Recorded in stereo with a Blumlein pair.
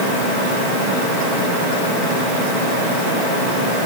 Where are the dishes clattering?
I don't hear dishes clattering.